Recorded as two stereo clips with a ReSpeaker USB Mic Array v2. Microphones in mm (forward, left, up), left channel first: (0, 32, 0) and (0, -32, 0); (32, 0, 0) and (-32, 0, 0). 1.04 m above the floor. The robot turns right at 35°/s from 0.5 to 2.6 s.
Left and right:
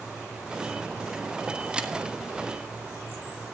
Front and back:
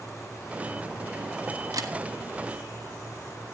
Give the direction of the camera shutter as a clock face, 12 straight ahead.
5 o'clock.